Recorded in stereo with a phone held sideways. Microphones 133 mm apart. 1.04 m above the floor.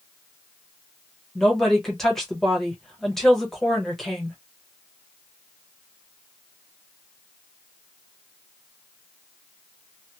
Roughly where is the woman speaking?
Centre.